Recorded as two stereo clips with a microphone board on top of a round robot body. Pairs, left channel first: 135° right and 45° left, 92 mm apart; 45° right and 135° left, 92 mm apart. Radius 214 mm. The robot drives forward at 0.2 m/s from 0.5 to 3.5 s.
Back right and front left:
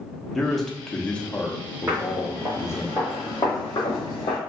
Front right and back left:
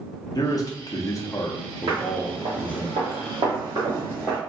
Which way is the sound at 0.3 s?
50° right.